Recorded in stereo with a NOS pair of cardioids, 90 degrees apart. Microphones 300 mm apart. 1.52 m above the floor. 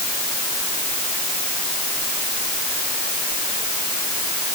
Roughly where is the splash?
No splash in this recording.